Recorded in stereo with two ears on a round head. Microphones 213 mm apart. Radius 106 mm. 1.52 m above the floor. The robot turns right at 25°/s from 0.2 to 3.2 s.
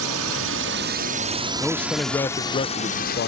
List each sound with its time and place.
0.0 s a drone: 70° right (ahead or behind); by 3.3 s 45° left (ahead or behind)
1.6 s a man speaking: straight ahead; by 3.3 s 40° left